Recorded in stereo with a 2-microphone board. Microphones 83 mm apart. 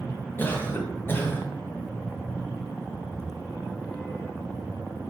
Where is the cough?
25° left (ahead or behind), 1.2 m.